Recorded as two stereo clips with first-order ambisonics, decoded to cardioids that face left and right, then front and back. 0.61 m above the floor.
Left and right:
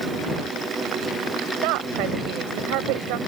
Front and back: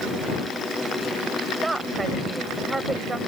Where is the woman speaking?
100° right.